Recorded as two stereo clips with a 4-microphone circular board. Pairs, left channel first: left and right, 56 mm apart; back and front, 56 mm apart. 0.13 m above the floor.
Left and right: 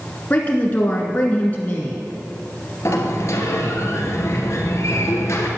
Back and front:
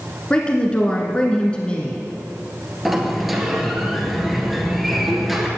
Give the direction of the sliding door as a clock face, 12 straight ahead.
9 o'clock.